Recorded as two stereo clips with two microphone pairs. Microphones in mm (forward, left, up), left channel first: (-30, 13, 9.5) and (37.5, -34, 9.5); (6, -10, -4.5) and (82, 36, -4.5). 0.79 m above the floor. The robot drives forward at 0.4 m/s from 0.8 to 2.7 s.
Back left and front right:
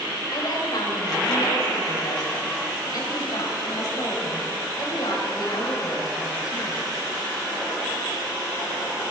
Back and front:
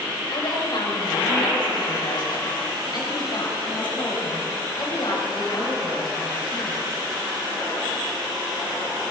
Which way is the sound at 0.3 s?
Straight behind.